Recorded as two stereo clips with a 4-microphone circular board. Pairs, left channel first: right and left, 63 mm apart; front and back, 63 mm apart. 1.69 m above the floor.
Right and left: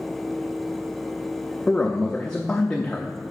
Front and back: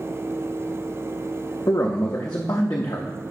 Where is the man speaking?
15° right, 0.5 m.